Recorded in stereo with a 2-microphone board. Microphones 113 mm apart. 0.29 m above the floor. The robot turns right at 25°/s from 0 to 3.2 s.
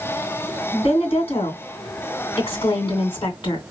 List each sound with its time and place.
0.7 s a woman speaking: 65° left, 2.5 m; by 3.6 s 125° left, 2.5 m